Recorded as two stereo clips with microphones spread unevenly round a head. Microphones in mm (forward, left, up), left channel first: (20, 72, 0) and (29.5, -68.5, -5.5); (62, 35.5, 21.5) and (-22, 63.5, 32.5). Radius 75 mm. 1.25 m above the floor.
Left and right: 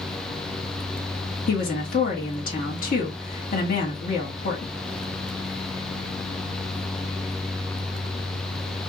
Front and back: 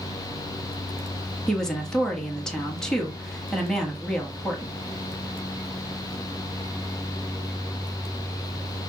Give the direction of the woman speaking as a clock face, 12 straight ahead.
10 o'clock.